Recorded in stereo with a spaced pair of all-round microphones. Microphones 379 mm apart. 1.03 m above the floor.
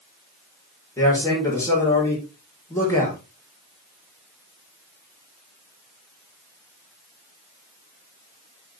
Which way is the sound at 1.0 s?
10° left (ahead or behind).